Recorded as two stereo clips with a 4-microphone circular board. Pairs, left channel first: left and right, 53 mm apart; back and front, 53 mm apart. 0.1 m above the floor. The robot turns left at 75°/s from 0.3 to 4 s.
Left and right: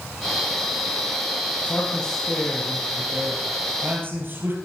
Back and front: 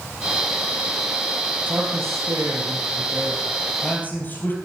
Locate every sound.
1.7 s a man speaking: 45° left, 3 m; by 4.6 s 130° right, 3 m